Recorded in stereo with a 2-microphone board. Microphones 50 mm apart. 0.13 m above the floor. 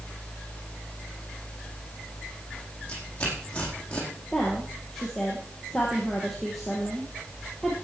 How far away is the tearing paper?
About 4.5 m.